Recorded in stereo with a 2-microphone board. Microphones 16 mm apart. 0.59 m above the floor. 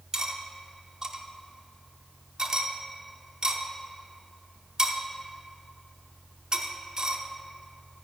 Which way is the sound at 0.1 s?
40° right (ahead or behind).